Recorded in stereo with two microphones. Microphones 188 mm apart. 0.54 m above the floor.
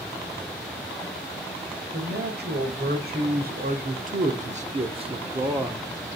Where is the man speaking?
60° right (ahead or behind), 2.5 m; by 5.9 s 10° right (ahead or behind), 1.2 m.